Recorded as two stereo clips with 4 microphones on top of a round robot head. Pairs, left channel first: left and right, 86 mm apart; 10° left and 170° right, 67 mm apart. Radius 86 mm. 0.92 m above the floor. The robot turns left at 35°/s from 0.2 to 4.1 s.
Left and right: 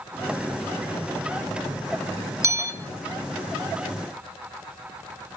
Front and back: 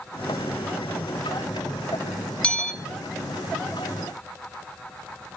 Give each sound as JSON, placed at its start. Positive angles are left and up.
{"t": 2.4, "sound": "a bell", "azimuth_deg": -55, "distance_m": 0.9}